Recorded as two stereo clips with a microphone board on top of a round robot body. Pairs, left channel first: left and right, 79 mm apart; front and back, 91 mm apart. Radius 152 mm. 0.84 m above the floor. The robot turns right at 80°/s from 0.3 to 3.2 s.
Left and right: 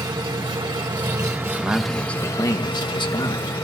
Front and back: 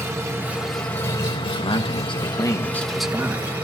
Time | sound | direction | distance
0.0 | an engine running | 120° right | 2.5 m
1.6 | a man speaking | 25° right | 1.5 m